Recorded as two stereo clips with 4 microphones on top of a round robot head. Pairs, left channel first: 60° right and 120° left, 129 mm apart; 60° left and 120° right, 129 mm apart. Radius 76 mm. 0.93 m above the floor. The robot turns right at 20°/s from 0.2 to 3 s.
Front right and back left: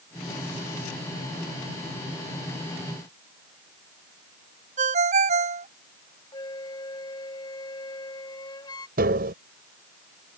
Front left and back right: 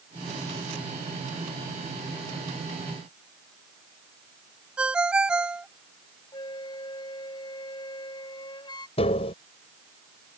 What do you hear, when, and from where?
4.8 s a ringtone: 155° left
6.3 s a flute: straight ahead
9.0 s tapping: 105° left